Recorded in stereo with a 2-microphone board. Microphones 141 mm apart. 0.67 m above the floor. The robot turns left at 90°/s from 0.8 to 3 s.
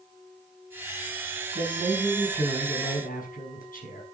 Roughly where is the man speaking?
Behind right.